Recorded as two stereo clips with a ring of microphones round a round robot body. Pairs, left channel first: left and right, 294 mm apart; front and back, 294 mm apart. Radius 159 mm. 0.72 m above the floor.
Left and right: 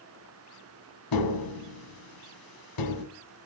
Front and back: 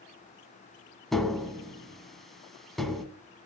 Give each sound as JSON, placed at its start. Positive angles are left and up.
{"t": 1.1, "sound": "tapping", "azimuth_deg": 90, "distance_m": 1.9}